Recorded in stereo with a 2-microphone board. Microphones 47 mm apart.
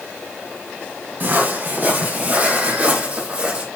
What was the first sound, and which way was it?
Footsteps, 40° right (ahead or behind).